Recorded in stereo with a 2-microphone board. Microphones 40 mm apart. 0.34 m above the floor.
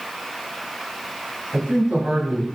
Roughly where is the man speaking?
Right.